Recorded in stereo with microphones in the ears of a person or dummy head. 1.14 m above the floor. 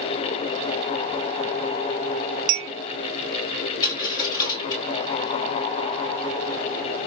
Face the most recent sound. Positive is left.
turn(degrees=20)  # may be behind; listen again after turning